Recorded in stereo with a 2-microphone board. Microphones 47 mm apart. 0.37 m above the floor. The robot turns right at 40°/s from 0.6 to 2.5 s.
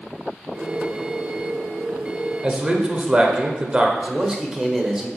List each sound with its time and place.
2.4 s a man speaking: 25° right (ahead or behind), 0.9 m
4.0 s a man speaking: 15° right (ahead or behind), 1.1 m